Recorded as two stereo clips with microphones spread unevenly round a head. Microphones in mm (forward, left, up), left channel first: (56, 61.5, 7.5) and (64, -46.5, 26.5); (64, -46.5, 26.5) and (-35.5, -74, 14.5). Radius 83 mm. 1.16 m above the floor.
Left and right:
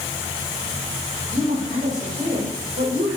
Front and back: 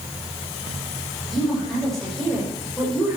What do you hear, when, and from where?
1.3 s a woman speaking: 70° right, 5.5 m